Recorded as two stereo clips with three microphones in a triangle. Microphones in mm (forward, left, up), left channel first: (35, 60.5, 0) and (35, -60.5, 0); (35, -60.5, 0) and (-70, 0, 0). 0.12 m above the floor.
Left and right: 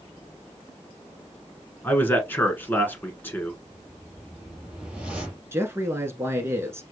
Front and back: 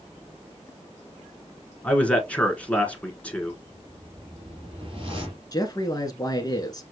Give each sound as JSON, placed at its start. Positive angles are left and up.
{"t": 1.8, "sound": "a man speaking", "azimuth_deg": 35, "distance_m": 1.4}
{"t": 3.6, "sound": "a whoosh", "azimuth_deg": -170, "distance_m": 3.0}
{"t": 5.5, "sound": "a man speaking", "azimuth_deg": -40, "distance_m": 1.2}